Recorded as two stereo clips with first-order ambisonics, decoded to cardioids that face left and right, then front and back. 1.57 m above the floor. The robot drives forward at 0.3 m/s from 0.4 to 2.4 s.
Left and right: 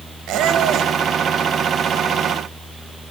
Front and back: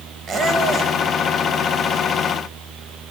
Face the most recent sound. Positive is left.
turn(degrees=-145)